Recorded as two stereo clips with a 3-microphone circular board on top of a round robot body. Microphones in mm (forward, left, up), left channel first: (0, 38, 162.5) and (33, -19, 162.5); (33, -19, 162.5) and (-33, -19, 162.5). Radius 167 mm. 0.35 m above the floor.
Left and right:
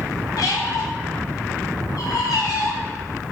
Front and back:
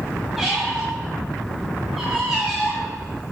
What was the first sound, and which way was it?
A squeak, 90° left.